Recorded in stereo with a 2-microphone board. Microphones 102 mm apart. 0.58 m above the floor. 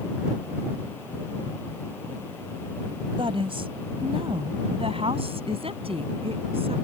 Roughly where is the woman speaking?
Right.